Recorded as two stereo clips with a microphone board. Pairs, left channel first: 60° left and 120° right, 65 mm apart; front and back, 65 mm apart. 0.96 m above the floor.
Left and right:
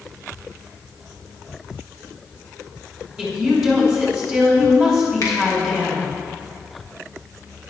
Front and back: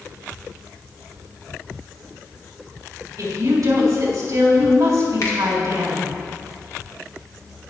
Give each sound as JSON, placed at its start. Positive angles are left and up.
{"t": 3.2, "sound": "a woman speaking", "azimuth_deg": 145, "distance_m": 3.5}
{"t": 5.2, "sound": "a finger snap", "azimuth_deg": 30, "distance_m": 1.9}